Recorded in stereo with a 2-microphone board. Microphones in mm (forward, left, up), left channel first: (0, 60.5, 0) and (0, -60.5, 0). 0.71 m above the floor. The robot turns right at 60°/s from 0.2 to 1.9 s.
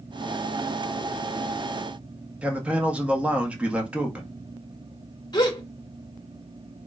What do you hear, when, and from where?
2.4 s a man speaking: 10° right (ahead or behind), 1.1 m
5.3 s a gasp: 35° left (ahead or behind), 1.0 m